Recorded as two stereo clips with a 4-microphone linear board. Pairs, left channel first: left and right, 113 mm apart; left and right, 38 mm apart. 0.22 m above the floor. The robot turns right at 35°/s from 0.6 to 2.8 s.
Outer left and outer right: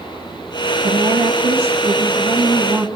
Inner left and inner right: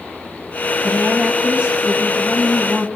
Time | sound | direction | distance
0.8 | a woman speaking | 105° right | 1.6 m